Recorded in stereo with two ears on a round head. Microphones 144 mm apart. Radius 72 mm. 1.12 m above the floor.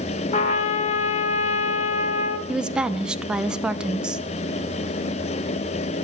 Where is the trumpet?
40° left (ahead or behind), 1.1 m.